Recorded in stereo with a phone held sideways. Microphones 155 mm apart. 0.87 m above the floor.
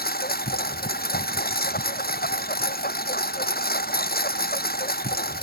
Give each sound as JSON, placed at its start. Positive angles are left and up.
{"t": 0.0, "sound": "a lawn mower", "side_deg": 80}